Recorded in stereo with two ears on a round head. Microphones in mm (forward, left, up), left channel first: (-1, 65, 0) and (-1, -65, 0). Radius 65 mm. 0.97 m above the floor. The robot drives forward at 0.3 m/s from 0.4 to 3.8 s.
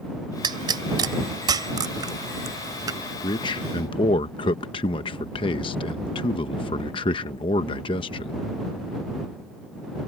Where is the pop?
30° right (ahead or behind); by 3.0 s 25° right (ahead or behind).